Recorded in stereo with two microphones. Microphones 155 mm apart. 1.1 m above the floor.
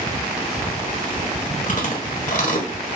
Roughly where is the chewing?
Left.